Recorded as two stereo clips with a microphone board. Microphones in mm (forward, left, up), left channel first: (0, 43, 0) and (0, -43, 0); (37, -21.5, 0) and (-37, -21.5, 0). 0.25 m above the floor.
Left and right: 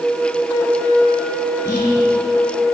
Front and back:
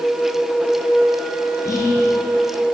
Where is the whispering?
40° left, 4 m.